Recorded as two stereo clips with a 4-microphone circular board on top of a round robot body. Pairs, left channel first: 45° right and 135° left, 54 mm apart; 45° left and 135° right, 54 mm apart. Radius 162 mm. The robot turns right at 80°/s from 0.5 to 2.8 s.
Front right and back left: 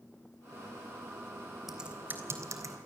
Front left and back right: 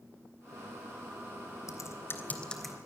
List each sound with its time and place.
1.7 s typing on a keyboard: 50° left, 3.5 m; by 2.8 s 140° left, 3.5 m